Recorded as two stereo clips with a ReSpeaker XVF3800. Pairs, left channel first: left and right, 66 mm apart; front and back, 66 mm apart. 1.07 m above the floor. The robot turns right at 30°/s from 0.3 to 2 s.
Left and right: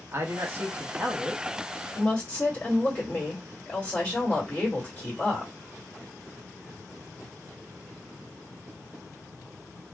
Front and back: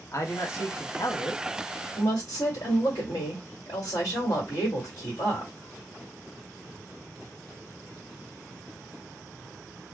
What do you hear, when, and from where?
0.1 s a man speaking: 40° right, 1.1 m; by 1.4 s 5° right, 1.1 m
1.9 s a woman speaking: 30° left, 1.9 m